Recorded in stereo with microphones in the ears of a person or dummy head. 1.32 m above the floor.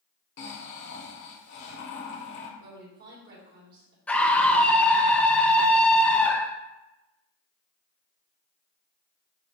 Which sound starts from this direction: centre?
A scream, at 4.1 s.